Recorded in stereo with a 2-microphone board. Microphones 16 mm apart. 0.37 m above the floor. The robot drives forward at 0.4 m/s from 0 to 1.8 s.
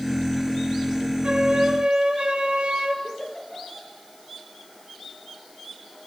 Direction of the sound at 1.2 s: 80° right.